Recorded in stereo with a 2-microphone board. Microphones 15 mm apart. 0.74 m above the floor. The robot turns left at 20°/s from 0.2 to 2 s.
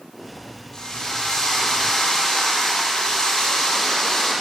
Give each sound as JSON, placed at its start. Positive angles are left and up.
{"t": 0.7, "sound": "a drill", "side_deg": 45, "distance_m": 9.5}